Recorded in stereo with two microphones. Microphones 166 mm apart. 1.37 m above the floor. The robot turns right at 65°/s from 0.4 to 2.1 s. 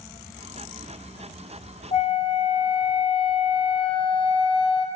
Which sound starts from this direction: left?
A flute, at 1.9 s.